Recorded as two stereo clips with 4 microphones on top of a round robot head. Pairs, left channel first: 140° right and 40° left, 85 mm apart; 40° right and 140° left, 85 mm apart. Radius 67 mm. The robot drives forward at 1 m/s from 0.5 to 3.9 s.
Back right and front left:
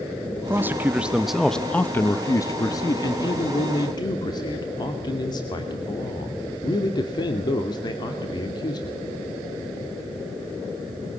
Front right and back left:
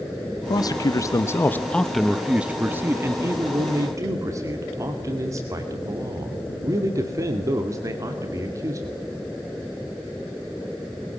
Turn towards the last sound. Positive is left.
turn(degrees=-170)